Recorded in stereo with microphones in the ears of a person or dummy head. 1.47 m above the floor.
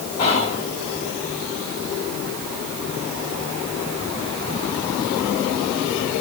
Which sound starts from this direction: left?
Whispering, at 0.2 s.